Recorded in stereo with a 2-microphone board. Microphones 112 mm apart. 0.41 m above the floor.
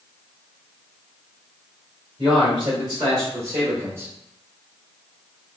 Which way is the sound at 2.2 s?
45° right (ahead or behind).